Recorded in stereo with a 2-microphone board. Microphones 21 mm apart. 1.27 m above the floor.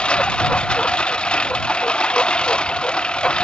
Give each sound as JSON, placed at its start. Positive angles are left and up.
{"t": 0.0, "sound": "a lawn mower", "side_deg": 55}